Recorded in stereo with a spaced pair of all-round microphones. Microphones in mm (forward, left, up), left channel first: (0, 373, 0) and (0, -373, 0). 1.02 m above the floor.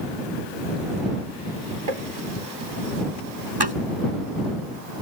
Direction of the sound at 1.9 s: 55° right (ahead or behind).